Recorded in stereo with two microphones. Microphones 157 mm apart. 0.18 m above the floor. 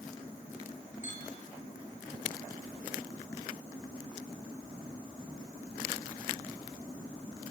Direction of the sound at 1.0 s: 50° left (ahead or behind).